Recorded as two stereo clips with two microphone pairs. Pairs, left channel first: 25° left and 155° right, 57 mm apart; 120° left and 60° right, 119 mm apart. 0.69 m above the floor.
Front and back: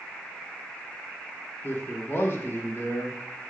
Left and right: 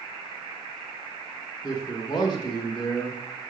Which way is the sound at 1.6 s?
70° left.